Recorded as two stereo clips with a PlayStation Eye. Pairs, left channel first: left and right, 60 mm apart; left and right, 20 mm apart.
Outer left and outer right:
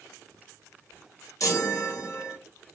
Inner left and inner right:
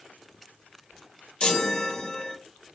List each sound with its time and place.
1.4 s a chime: 65° left (ahead or behind), 1.1 m